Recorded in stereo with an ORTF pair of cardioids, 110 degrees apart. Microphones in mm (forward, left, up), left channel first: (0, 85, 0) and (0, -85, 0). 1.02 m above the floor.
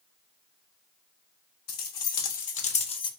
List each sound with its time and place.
1.7 s keys jangling: 70° left, 1.4 m; by 3.1 s 30° left, 0.8 m